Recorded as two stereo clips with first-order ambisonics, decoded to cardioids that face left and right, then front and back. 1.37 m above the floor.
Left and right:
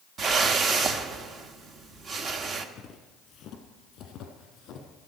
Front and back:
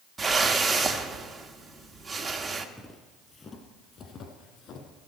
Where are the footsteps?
75° left, 1.5 m; by 5.1 s 45° left, 3 m.